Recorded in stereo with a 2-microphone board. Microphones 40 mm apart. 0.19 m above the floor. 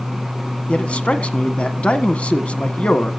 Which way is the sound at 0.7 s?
30° left (ahead or behind).